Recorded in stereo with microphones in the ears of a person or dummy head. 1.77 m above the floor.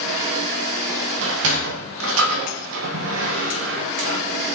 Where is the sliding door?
70° right (ahead or behind), 1.6 m.